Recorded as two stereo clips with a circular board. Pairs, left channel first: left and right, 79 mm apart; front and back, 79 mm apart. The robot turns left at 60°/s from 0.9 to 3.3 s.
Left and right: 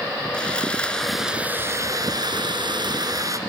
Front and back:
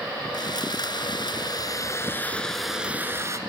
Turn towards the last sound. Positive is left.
turn(degrees=-130)